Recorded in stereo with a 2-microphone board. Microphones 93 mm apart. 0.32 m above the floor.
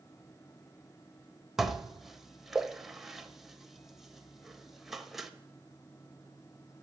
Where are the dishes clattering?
5° right (ahead or behind), 0.8 m.